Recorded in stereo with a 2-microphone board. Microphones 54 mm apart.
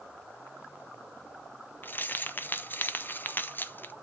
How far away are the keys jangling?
About 0.6 m.